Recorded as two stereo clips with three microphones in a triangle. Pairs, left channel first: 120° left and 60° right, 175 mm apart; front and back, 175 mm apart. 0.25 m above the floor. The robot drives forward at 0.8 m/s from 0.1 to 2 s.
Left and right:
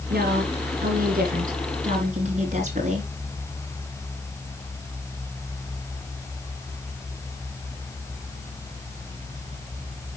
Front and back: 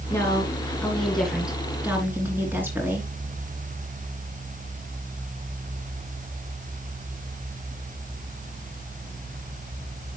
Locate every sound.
0.1 s a woman speaking: 75° right, 3 m; by 3.1 s 100° right, 3 m